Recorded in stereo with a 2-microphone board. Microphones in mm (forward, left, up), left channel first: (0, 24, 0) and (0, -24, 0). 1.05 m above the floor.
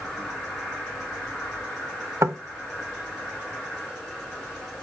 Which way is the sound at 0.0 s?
15° left (ahead or behind).